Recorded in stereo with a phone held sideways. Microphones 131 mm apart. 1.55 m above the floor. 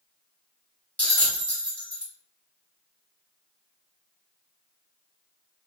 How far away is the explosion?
I don't hear an explosion.